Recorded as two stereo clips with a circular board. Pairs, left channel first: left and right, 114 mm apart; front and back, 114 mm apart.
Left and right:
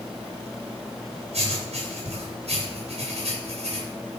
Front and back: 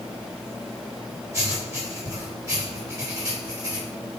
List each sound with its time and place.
1.3 s writing: 115° right, 6 m